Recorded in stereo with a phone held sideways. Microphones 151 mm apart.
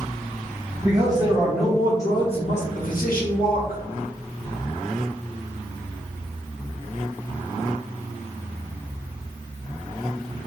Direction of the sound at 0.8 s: 30° right (ahead or behind).